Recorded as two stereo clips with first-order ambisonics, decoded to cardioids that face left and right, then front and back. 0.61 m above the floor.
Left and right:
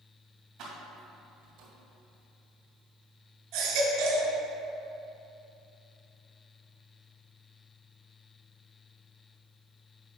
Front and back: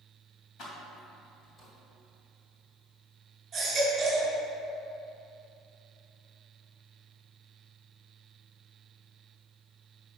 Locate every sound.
0.6 s keys jangling: 50° right, 2.5 m; by 1.7 s 70° right, 1.9 m
3.5 s a baby crying: 110° right, 2 m